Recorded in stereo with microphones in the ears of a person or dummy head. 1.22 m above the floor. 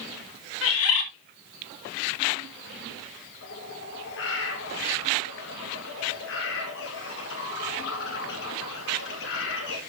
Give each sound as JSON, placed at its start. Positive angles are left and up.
{"t": 0.6, "sound": "a bird", "side_deg": 70, "distance_m": 2.0}
{"t": 3.4, "sound": "a bird", "side_deg": 60, "distance_m": 2.0}